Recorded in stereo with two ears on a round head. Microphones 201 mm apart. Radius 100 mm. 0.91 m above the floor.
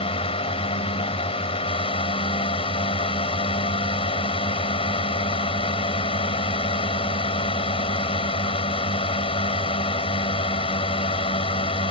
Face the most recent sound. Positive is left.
turn(degrees=25)  # may be behind; listen again after turning